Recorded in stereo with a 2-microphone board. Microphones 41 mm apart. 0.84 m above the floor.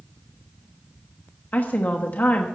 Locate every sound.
1.5 s a woman speaking: 45° left (ahead or behind), 1.1 m